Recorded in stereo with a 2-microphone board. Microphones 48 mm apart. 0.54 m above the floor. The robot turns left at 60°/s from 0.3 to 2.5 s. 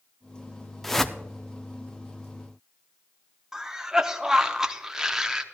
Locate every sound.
0.8 s a whoosh: 5° left (ahead or behind), 0.5 m; by 1.2 s 15° left (ahead or behind), 0.5 m
3.5 s a cough: 10° right (ahead or behind), 0.8 m